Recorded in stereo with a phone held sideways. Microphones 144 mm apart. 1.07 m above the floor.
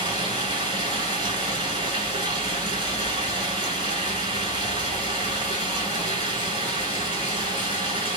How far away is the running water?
About 2 m.